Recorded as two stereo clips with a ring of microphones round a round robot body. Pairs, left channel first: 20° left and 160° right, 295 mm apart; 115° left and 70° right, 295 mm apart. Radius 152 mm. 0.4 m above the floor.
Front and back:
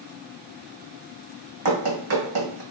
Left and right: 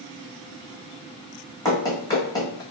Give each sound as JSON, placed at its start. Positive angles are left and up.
{"t": 1.6, "sound": "running footsteps", "azimuth_deg": -170, "distance_m": 1.5}